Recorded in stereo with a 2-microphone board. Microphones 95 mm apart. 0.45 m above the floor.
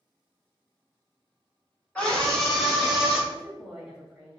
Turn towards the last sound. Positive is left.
turn(degrees=-5)  # may be behind; listen again after turning